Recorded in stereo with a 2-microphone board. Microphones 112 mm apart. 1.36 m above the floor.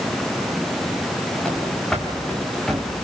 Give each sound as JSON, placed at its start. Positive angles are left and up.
{"t": 1.4, "sound": "running footsteps", "side_deg": 5, "distance_m": 6.0}